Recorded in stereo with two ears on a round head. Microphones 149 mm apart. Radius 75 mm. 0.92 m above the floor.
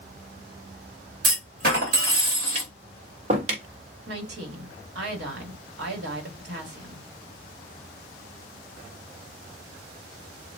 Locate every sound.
1.2 s a clunk: 60° right (ahead or behind), 2 m
2.5 s tapping: 40° right (ahead or behind), 1.3 m
4.1 s a woman speaking: 70° right (ahead or behind), 1.9 m